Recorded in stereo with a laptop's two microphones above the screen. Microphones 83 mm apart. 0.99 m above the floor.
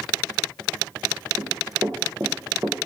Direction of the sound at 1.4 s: 40° right (ahead or behind).